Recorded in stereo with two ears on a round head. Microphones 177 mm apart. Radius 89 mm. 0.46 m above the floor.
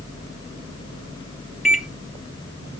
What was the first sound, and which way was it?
A microwave, 5° right (ahead or behind).